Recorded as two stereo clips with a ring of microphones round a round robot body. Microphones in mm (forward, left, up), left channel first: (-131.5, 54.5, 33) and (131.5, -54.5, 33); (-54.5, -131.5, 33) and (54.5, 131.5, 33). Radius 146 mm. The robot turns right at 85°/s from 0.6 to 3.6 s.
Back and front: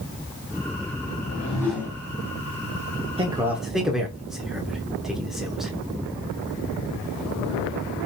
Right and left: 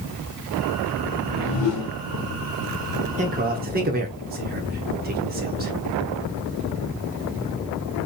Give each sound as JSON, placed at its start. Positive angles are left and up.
{"t": 1.1, "sound": "a whoosh", "azimuth_deg": -165, "distance_m": 1.6}
{"t": 3.2, "sound": "a man speaking", "azimuth_deg": 30, "distance_m": 0.8}